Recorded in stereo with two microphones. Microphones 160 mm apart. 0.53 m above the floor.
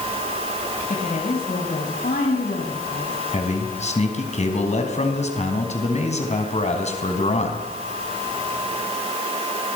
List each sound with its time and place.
0.9 s a woman speaking: 60° left (ahead or behind), 4 m; by 3.2 s 75° left (ahead or behind), 5 m
3.3 s a man speaking: 45° left (ahead or behind), 3.5 m